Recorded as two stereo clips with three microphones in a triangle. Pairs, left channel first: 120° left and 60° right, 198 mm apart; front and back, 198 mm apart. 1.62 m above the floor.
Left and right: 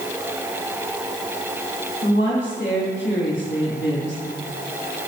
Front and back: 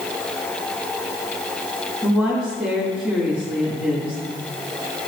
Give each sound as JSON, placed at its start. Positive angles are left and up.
{"t": 2.0, "sound": "a woman speaking", "azimuth_deg": 90, "distance_m": 3.0}